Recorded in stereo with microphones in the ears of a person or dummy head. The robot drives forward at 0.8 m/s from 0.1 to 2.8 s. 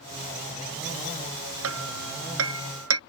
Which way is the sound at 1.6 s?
90° right.